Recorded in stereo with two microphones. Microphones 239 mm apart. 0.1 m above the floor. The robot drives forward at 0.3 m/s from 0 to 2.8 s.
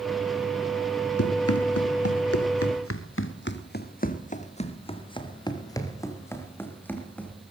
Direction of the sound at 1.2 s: 85° left.